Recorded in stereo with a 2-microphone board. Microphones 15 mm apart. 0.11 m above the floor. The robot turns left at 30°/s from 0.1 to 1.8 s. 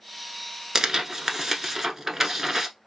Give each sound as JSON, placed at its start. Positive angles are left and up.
{"t": 0.8, "sound": "tearing paper", "azimuth_deg": -90, "distance_m": 0.9}